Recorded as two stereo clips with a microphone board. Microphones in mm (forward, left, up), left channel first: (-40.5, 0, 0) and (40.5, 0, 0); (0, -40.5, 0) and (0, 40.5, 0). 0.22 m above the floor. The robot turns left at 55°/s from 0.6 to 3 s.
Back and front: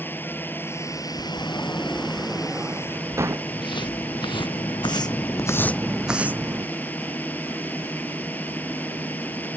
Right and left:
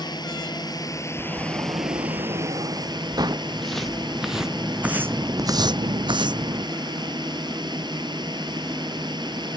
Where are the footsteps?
175° right; by 6.7 s 55° left.